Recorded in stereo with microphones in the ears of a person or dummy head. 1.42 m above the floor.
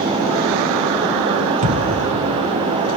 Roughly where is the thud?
Right.